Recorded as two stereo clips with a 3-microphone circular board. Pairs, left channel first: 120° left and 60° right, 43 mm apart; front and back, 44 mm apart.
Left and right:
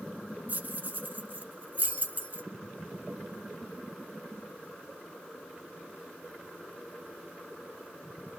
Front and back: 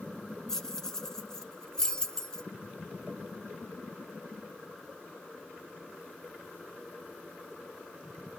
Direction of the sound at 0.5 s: 70° right.